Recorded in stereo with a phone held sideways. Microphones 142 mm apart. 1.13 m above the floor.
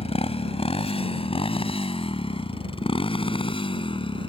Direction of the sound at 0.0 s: 45° left (ahead or behind).